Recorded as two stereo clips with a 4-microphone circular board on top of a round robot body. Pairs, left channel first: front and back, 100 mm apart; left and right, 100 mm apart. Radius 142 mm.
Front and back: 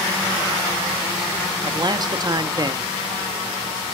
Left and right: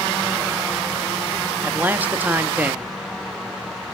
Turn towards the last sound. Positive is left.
turn(degrees=-155)